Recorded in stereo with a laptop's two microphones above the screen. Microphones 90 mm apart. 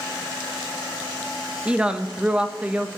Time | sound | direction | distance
1.6 | a woman speaking | 15° right (ahead or behind) | 1.1 m